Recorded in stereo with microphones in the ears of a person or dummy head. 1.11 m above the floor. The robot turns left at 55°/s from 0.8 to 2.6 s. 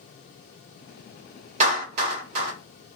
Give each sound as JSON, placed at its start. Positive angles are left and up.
{"t": 1.6, "sound": "a clap", "side_deg": -35, "distance_m": 1.4}